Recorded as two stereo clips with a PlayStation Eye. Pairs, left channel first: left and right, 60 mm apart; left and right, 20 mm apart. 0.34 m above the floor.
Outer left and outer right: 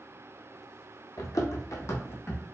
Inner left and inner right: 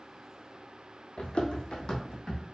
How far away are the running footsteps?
About 0.8 m.